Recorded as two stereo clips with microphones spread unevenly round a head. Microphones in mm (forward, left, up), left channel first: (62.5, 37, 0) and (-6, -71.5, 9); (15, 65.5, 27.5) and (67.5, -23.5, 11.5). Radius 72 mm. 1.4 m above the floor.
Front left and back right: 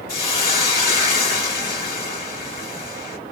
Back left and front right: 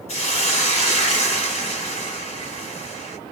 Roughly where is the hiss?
Behind left.